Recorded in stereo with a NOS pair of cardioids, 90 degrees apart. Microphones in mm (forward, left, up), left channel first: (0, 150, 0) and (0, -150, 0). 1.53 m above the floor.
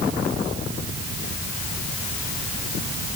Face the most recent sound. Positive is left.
No sound to turn to.